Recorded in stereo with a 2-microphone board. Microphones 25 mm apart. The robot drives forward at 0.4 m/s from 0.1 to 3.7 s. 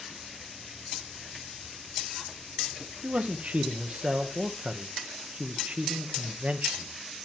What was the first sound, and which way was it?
A man speaking, 70° right (ahead or behind).